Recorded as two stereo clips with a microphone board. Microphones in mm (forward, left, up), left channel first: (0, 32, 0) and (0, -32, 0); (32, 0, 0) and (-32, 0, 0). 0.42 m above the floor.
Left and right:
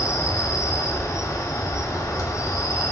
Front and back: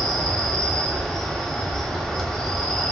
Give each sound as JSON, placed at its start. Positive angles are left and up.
{"t": 0.0, "sound": "an insect", "azimuth_deg": 80, "distance_m": 1.1}